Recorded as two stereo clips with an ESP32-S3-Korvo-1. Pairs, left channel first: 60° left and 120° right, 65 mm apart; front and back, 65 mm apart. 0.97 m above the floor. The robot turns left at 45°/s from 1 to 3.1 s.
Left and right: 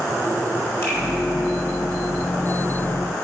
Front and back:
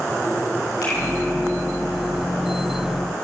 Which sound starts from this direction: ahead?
A finger snap, at 0.8 s.